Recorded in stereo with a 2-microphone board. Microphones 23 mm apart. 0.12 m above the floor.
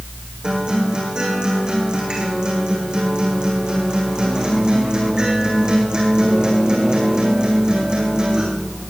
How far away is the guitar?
About 6.5 m.